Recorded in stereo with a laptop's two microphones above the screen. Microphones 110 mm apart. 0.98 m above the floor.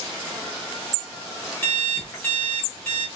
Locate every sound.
1.6 s an alarm clock: 20° left (ahead or behind), 1.0 m